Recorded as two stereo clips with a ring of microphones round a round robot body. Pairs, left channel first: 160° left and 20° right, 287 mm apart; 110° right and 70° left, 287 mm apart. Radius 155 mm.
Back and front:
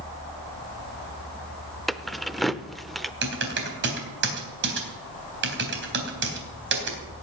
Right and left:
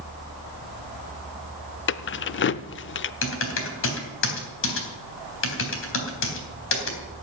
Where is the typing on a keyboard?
70° right, 3.5 m.